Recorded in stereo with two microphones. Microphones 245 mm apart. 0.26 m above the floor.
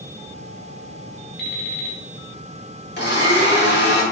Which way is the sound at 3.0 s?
45° left (ahead or behind).